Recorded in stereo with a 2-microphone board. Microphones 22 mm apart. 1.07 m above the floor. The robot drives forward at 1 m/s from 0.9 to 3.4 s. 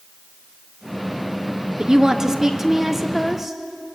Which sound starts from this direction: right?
A woman speaking, at 1.8 s.